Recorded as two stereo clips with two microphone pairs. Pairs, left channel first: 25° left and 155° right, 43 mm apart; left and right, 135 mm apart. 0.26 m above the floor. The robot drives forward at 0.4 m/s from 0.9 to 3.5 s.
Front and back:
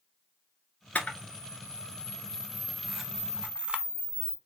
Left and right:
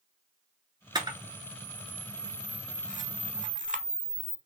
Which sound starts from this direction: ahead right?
A camera shutter, at 0.9 s.